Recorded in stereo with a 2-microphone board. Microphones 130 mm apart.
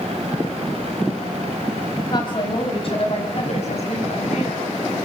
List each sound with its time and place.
2.1 s a woman speaking: 35° left (ahead or behind), 3.5 m; by 4.6 s 60° left (ahead or behind), 6.5 m